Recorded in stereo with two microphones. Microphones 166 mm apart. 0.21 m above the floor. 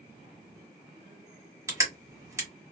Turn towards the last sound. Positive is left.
turn(degrees=-20)  # may be behind; listen again after turning